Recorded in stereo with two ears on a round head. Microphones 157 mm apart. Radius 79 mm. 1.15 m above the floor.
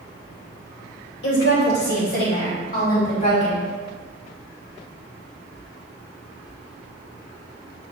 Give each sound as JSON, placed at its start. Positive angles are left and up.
{"t": 1.2, "sound": "a woman speaking", "side_deg": 75, "distance_m": 2.5}